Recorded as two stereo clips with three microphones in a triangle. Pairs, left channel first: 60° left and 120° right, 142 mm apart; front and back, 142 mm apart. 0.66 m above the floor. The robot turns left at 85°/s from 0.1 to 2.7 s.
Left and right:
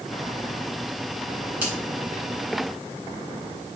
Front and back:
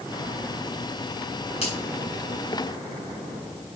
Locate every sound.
1.6 s a finger snap: 40° right, 6 m; by 1.8 s 55° right, 6 m